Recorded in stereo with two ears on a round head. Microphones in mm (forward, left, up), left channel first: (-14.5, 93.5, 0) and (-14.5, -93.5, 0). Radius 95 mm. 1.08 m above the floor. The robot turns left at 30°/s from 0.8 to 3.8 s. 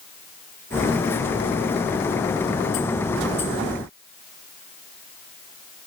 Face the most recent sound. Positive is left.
No sound to turn to.